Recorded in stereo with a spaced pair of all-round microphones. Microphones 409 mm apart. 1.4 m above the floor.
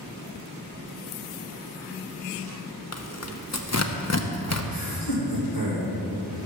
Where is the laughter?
60° left (ahead or behind), 3.5 m.